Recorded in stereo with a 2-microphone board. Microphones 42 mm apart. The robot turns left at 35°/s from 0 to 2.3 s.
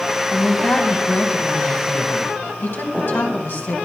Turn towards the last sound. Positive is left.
turn(degrees=85)